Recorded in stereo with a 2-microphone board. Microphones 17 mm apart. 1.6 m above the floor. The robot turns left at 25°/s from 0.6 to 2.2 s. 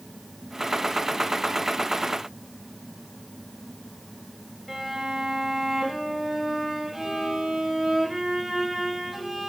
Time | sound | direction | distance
4.7 | a violin | 5° right (ahead or behind) | 5 m